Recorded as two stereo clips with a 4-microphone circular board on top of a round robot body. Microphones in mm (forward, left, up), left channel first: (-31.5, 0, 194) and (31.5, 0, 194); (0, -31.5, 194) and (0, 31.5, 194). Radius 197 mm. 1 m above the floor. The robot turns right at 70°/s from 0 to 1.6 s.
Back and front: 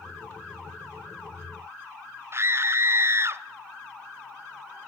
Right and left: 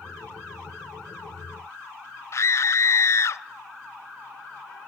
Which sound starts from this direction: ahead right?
A scream, at 2.3 s.